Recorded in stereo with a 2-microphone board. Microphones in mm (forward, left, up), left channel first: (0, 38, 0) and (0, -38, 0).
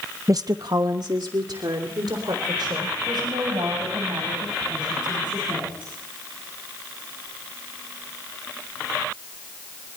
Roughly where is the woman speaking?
Right.